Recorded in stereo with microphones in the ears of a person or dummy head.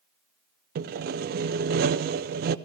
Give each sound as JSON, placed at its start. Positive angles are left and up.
{"t": 0.8, "sound": "sawing", "side_deg": -50, "distance_m": 0.5}